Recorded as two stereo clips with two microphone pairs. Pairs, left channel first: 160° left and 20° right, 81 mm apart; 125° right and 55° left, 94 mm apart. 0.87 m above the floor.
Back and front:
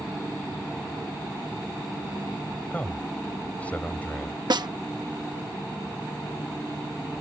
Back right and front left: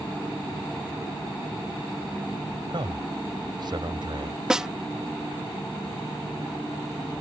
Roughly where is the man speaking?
Left.